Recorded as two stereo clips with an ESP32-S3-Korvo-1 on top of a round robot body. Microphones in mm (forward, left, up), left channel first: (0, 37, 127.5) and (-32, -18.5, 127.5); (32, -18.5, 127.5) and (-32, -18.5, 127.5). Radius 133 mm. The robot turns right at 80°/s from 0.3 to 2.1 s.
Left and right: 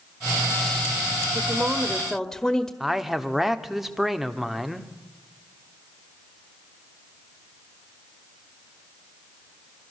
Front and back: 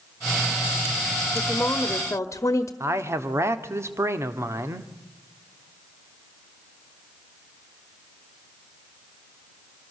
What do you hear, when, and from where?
1.4 s a woman speaking: 85° right, 1.4 m; by 2.7 s 25° right, 1.4 m
2.8 s a man speaking: 155° left, 1.6 m